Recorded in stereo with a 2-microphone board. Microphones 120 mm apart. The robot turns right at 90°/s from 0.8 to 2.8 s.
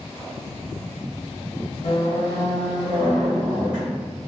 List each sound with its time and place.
1.8 s a squeak: 100° left, 1.0 m; by 4.1 s 175° right, 1.0 m